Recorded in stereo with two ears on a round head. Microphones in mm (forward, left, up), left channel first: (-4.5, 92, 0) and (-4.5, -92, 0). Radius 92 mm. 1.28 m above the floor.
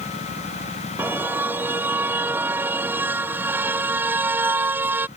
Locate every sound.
1.0 s a car horn: 10° right (ahead or behind)